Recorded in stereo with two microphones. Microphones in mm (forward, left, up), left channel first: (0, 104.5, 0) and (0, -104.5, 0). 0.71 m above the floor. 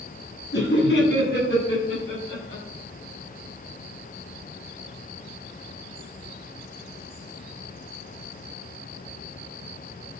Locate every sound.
0.5 s laughter: 60° left (ahead or behind), 6.5 m; by 2.6 s 45° left (ahead or behind), 7.5 m